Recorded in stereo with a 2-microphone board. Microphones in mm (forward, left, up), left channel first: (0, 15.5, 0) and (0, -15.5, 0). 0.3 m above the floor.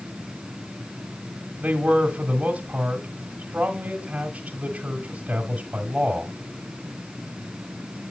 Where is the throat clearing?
No throat clearing in this recording.